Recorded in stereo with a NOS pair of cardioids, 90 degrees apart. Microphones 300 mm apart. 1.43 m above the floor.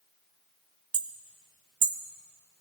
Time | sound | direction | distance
0.9 | hammering | 50° right | 1.3 m